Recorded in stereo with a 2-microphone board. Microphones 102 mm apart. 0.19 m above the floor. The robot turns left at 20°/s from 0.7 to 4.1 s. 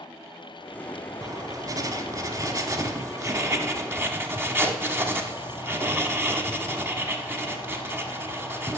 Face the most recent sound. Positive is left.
turn(degrees=-140)